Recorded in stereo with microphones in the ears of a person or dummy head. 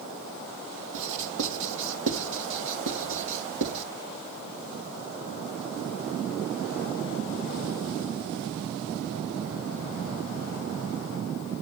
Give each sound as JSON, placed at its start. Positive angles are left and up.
{"t": 0.9, "sound": "writing", "side_deg": -70, "distance_m": 3.0}